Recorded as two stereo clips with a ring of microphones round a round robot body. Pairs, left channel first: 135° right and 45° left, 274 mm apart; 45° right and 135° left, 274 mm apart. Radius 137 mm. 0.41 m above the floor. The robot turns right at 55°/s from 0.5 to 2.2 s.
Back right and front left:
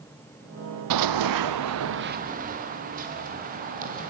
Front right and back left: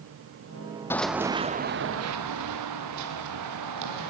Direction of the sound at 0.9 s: 35° left.